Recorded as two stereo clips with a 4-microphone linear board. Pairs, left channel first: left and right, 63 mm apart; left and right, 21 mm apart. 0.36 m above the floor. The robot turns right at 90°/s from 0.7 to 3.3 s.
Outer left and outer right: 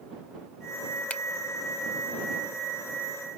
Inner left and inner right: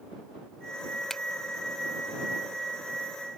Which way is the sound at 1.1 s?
20° left (ahead or behind).